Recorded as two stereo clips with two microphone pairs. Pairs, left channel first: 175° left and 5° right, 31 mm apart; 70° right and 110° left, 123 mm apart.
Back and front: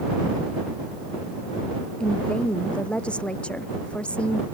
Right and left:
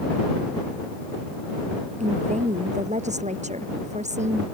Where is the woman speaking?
125° left.